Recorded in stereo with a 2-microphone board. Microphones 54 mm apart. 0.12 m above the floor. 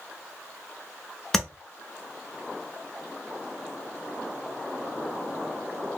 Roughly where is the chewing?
I don't hear chewing.